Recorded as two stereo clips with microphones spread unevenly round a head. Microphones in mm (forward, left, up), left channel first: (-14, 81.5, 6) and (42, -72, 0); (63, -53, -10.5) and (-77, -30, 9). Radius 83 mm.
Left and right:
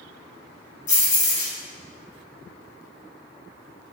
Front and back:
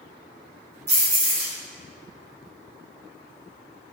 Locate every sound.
0.9 s keys jangling: 160° left, 1.3 m